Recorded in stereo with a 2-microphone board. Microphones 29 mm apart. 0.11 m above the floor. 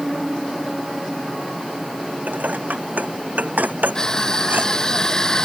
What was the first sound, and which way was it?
Dishes clattering, 75° right (ahead or behind).